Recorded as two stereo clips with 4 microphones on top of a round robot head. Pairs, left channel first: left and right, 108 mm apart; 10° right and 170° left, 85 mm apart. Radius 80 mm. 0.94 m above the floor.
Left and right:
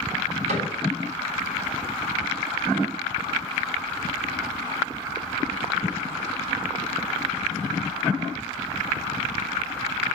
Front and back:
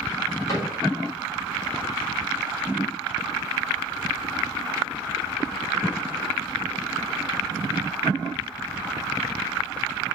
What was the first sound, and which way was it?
A cupboard door, 70° right.